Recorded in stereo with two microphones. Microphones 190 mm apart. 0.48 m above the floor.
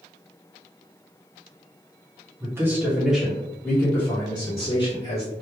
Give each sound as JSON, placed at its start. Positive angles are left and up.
{"t": 2.4, "sound": "a man speaking", "side_deg": -15, "distance_m": 1.3}